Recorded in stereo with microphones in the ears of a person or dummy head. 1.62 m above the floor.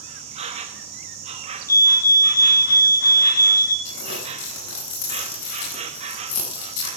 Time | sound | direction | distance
0.0 | an insect | 35° right (ahead or behind) | 0.8 m
1.7 | a fire alarm | 15° left (ahead or behind) | 2.5 m
3.9 | crumpling | 75° left (ahead or behind) | 7.5 m